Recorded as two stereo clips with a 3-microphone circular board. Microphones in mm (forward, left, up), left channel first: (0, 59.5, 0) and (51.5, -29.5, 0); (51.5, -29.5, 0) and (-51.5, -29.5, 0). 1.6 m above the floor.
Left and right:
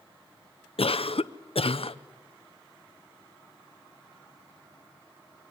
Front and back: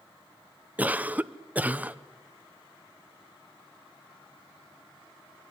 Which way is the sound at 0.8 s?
105° left.